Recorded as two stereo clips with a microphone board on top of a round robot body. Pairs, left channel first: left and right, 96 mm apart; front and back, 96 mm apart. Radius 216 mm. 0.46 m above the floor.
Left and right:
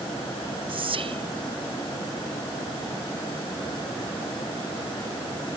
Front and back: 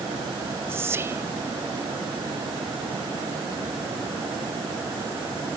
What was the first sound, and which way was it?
Whispering, 115° right.